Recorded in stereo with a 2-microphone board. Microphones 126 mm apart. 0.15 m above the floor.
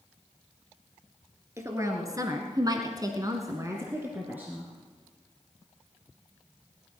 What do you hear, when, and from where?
1.6 s a woman speaking: 25° right (ahead or behind), 2.5 m; by 4.7 s 10° right (ahead or behind), 2.5 m